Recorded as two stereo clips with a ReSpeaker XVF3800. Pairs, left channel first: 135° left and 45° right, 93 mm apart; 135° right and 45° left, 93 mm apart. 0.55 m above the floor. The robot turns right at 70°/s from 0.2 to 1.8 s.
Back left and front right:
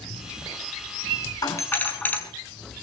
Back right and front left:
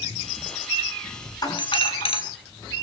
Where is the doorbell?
Straight behind, 6 m; by 2.2 s 155° right, 6 m.